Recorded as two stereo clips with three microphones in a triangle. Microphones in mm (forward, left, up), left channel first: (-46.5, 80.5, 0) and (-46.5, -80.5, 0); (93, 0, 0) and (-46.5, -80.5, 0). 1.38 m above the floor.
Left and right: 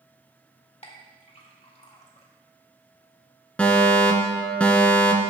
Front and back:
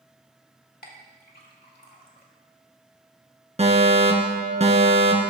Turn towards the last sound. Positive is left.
turn(degrees=170)